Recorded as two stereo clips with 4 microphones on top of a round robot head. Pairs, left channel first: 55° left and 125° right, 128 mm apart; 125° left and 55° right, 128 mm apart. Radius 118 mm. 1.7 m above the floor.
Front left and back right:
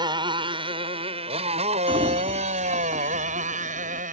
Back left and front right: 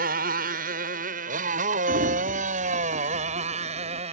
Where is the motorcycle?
65° right; by 4.1 s 100° right.